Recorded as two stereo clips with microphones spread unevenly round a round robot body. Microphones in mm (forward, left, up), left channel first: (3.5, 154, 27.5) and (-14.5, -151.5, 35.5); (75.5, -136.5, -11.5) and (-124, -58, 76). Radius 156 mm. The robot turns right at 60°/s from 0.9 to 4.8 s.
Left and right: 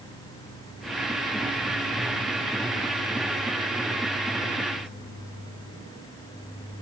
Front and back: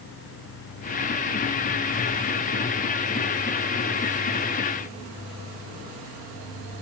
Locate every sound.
Only background noise.